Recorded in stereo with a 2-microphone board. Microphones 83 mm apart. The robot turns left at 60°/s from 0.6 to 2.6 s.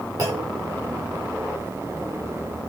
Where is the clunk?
45° right (ahead or behind), 7.5 m.